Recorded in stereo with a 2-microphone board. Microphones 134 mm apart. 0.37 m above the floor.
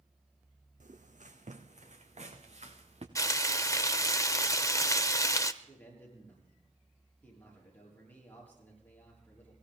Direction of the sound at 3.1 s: 25° left (ahead or behind).